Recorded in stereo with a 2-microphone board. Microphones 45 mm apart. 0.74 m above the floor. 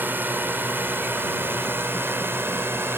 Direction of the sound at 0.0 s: 50° right (ahead or behind).